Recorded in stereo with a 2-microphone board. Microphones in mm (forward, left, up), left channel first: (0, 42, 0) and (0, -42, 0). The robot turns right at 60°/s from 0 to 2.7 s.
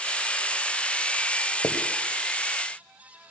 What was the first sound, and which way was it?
Writing, 55° left (ahead or behind).